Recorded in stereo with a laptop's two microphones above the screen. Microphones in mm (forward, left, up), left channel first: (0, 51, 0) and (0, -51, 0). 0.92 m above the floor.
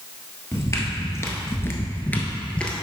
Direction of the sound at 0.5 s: 30° left (ahead or behind).